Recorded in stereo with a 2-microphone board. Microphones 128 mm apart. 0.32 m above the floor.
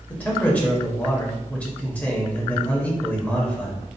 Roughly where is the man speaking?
Centre.